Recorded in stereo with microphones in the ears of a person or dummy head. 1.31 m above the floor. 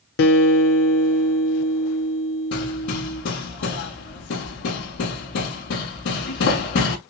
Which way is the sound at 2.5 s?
65° left (ahead or behind).